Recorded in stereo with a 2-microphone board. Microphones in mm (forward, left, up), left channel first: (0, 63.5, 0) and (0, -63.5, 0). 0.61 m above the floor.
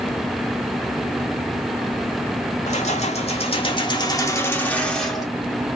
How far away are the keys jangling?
About 1.2 m.